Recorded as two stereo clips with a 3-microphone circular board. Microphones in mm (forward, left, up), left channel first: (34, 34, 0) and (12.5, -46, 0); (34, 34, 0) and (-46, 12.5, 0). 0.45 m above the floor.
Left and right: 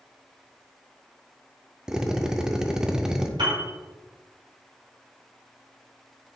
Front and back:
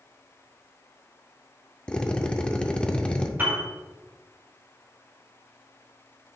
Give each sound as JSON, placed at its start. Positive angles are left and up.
{"t": 1.9, "sound": "a drill", "azimuth_deg": -40, "distance_m": 0.6}
{"t": 3.4, "sound": "a piano", "azimuth_deg": -105, "distance_m": 3.0}